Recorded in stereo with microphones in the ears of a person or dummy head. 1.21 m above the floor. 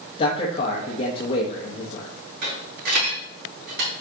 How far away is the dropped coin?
About 4.5 m.